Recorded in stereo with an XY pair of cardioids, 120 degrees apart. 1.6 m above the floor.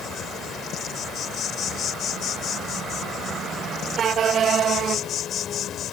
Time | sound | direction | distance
0.0 | an insect | 55° left | ?